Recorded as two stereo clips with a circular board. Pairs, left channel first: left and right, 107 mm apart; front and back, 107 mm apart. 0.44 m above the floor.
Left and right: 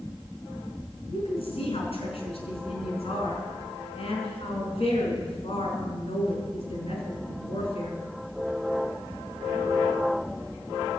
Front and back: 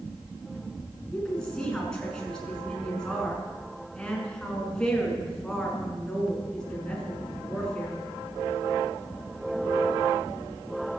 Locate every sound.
1.1 s a woman speaking: 85° left, 5.5 m